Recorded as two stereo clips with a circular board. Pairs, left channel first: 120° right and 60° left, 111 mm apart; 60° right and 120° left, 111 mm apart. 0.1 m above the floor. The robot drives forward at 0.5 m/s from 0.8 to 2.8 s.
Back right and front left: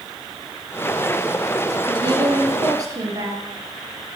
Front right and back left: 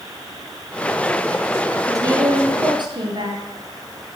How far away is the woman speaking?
About 1.5 m.